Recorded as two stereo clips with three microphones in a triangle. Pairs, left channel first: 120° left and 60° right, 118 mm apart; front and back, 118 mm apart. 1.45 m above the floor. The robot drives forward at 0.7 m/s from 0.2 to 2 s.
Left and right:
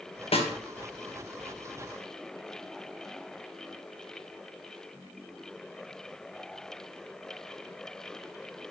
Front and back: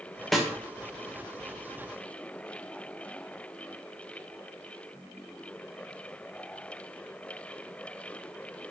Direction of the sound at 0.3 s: 90° left.